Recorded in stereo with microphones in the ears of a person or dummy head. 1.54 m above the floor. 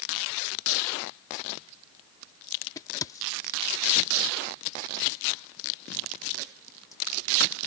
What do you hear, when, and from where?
2.8 s a crack: 15° left (ahead or behind)